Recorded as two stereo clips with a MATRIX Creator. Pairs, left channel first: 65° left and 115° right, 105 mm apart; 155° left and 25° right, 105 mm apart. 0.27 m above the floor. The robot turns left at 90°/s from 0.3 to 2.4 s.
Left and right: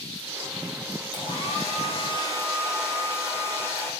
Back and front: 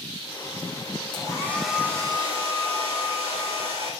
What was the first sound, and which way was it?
A hair dryer, 115° left.